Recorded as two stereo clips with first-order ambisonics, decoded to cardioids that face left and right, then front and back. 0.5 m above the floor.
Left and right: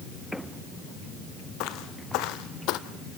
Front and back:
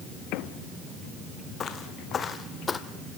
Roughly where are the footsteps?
Ahead left.